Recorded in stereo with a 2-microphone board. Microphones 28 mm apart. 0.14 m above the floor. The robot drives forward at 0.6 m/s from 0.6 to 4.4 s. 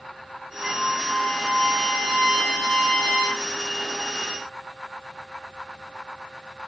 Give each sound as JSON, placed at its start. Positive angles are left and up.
{"t": 0.6, "sound": "a trumpet", "side_deg": -5, "distance_m": 7.0}